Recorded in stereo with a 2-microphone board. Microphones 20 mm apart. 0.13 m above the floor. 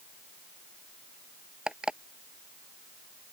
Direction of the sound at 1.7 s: 50° right (ahead or behind).